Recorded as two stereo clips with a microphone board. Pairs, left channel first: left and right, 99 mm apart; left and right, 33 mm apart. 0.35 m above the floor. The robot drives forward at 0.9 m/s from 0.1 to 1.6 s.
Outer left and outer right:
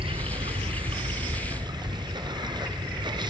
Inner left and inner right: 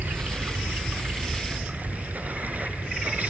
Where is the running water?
70° right (ahead or behind), 1.2 m; by 3.3 s 50° right (ahead or behind), 1.5 m.